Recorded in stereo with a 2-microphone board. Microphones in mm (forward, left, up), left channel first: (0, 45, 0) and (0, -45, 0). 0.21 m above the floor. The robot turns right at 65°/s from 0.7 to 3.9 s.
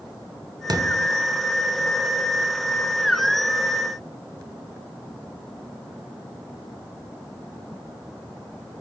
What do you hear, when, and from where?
0.7 s a thud: 50° right (ahead or behind), 1.3 m; by 1.1 s 30° right (ahead or behind), 1.3 m